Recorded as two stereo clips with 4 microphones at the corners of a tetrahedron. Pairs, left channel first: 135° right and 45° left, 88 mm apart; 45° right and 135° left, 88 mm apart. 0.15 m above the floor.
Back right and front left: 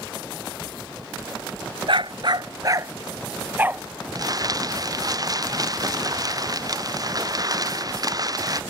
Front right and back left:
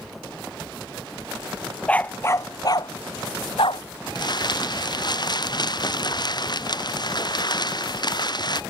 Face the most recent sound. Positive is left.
turn(degrees=-5)